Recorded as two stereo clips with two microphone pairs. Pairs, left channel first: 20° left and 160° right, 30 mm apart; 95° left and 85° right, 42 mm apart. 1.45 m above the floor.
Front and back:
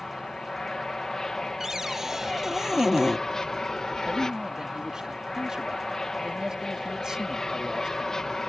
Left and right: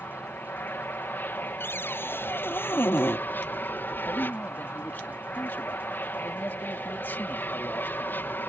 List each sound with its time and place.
0.0 s an aircraft: 85° left
1.6 s a cupboard door: 120° left
4.1 s a man speaking: 130° left